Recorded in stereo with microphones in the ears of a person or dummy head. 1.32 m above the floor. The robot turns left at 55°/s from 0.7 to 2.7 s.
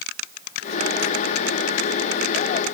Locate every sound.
Only background noise.